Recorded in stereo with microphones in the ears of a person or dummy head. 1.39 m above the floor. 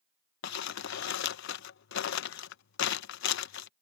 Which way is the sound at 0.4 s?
60° left (ahead or behind).